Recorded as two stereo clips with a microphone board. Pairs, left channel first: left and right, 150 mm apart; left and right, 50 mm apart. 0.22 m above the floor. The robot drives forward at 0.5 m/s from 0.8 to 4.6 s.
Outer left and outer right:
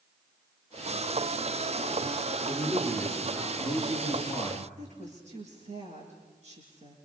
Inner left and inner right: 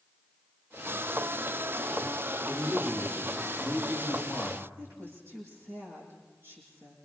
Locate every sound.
2.5 s a man speaking: 30° right (ahead or behind), 6 m; by 4.7 s 35° right (ahead or behind), 5 m
4.8 s a woman speaking: 50° right (ahead or behind), 9 m